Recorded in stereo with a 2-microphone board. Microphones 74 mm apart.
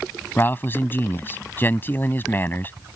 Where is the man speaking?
30° left (ahead or behind).